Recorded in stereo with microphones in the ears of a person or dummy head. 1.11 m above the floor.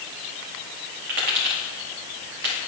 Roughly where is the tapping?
Right.